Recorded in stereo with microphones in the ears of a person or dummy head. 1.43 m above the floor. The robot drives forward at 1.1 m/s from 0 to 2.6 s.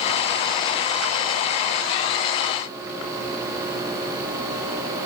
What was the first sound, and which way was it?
Only background noise.